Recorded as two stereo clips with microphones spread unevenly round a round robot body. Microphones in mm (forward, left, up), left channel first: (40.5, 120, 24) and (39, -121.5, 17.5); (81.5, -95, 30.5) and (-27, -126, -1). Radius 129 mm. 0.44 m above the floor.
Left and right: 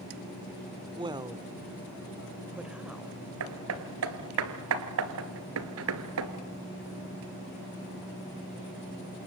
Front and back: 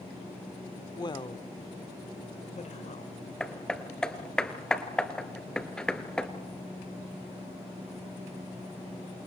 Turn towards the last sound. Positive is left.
turn(degrees=-65)